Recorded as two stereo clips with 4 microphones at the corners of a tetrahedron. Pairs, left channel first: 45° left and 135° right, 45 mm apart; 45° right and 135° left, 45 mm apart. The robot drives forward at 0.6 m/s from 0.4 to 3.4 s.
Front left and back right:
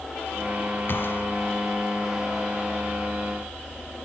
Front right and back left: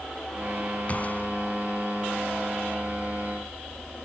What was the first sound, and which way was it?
A gunshot, 10° left.